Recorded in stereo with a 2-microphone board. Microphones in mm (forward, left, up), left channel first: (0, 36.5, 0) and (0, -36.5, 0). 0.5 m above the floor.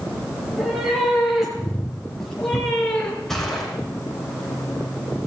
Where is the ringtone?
I don't hear a ringtone.